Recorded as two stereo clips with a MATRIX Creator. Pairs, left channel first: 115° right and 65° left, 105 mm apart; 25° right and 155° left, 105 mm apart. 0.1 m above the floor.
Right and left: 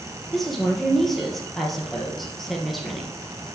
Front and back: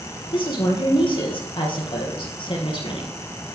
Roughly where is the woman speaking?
Ahead right.